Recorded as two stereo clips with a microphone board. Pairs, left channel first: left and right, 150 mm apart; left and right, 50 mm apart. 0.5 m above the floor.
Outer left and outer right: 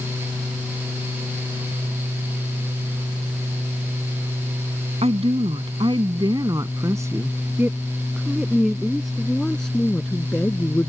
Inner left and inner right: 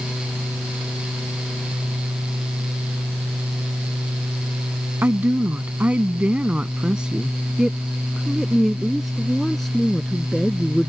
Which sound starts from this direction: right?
A woman speaking, at 5.0 s.